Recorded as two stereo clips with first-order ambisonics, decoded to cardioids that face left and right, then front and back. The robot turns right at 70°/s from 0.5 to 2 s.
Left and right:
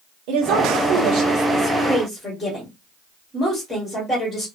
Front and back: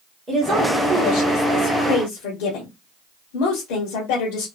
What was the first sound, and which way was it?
A woman speaking, 105° right.